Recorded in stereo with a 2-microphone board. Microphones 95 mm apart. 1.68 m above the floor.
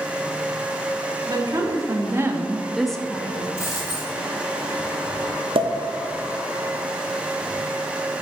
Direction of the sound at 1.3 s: 45° right (ahead or behind).